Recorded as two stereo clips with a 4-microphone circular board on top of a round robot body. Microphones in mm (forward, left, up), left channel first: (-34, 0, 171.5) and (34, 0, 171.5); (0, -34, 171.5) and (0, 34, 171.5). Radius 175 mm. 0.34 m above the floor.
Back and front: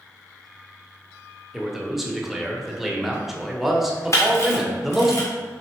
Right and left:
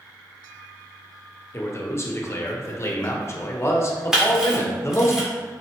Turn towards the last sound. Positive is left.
turn(degrees=170)